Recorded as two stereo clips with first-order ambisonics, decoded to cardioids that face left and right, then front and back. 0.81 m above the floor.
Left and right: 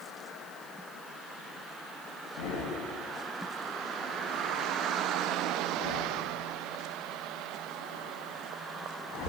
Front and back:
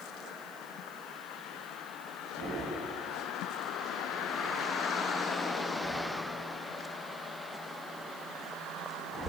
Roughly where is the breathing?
Left.